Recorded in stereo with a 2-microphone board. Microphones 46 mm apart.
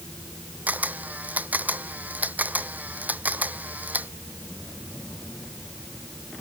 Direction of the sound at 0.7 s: 35° right (ahead or behind).